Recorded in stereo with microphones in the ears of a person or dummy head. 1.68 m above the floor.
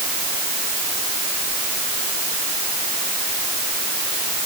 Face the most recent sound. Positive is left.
No sound to turn to.